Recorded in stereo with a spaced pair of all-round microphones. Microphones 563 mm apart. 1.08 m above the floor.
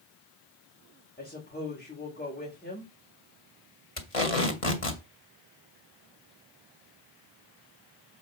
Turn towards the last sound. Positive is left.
turn(degrees=70)  # may be behind; listen again after turning